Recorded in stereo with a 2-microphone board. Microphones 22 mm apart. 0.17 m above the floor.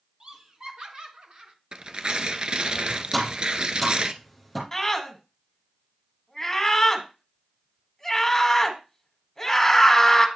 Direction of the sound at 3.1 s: Centre (ahead or behind).